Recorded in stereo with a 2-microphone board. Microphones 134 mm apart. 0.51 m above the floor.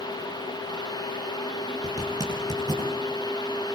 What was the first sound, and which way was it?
A zipper, 30° right (ahead or behind).